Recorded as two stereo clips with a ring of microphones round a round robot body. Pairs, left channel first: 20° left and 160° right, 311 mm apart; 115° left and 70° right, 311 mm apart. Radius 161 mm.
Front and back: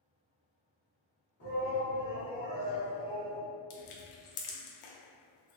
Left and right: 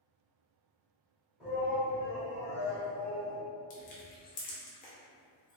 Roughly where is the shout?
Ahead.